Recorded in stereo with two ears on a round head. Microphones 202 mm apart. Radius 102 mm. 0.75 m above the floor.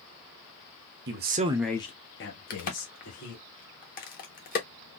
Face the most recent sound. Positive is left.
turn(degrees=40)  # may be behind; listen again after turning